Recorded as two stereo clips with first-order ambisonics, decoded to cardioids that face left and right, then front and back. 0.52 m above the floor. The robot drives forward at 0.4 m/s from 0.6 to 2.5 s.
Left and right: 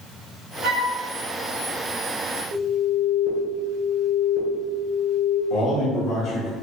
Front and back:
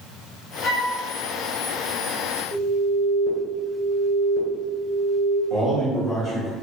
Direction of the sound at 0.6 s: 60° right.